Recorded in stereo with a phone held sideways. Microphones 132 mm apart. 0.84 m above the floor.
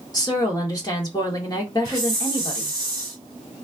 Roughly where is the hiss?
Right.